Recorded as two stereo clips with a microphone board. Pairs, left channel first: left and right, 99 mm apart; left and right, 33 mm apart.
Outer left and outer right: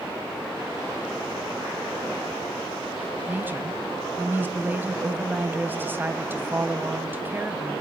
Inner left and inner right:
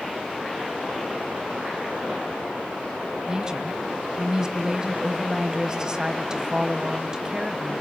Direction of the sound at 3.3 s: 20° right (ahead or behind).